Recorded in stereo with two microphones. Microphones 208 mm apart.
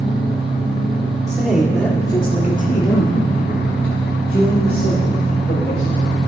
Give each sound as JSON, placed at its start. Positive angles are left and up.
{"t": 1.3, "sound": "a man speaking", "side_deg": -15, "distance_m": 1.8}